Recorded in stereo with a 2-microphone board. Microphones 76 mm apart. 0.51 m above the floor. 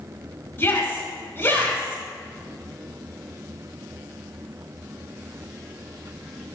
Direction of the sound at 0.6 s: 30° left (ahead or behind).